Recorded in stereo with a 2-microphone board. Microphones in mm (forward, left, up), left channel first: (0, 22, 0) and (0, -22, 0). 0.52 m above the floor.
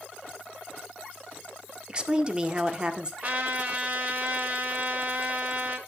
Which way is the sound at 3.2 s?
40° right (ahead or behind).